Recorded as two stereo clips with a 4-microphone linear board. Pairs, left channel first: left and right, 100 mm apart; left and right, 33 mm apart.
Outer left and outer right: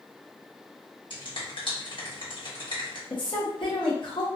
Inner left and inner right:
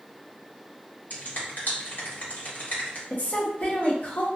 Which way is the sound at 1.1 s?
55° left (ahead or behind).